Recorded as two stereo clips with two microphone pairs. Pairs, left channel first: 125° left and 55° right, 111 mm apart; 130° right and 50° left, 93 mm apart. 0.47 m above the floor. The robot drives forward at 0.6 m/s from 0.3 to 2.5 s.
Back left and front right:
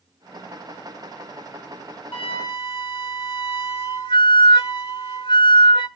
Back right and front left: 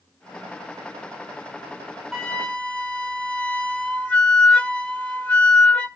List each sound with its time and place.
2.1 s a flute: 150° left, 0.8 m; by 5.9 s 155° left, 1.0 m